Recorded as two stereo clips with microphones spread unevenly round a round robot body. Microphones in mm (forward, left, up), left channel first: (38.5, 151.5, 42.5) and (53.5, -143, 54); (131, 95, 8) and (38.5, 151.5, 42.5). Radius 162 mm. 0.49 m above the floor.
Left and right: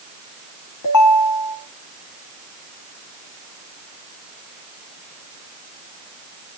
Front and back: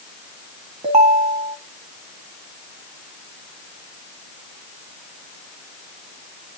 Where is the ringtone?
125° left, 3 m.